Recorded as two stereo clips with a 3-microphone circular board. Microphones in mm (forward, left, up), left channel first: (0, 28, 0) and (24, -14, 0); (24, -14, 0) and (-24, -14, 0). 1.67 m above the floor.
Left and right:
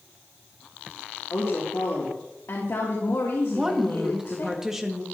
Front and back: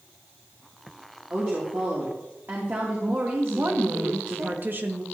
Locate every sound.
1.3 s a woman speaking: 135° left, 3 m
3.5 s a woman speaking: 140° right, 1.8 m